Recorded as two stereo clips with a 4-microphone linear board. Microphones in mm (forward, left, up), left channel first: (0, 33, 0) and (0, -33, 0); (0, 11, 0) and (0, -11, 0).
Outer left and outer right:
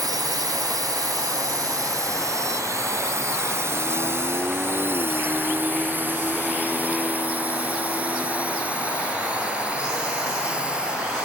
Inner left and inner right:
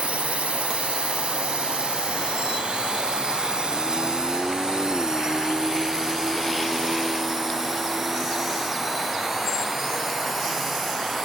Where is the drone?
75° right (ahead or behind); by 11.2 s 15° right (ahead or behind).